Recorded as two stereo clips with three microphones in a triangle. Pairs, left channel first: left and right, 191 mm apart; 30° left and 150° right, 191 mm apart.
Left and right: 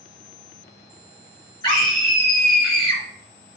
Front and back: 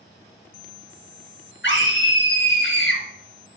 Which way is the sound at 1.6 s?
20° left.